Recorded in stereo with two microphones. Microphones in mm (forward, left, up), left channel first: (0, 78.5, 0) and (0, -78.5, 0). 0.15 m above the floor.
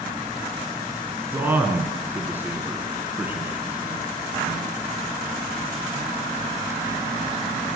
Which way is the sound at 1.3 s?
15° right (ahead or behind).